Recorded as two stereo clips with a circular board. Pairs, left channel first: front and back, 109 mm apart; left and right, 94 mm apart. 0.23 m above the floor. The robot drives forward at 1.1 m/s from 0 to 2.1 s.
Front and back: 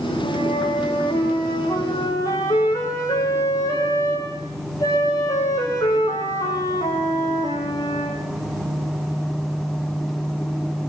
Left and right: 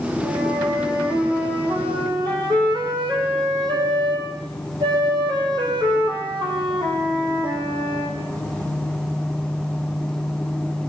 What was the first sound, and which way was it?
A flute, 45° right.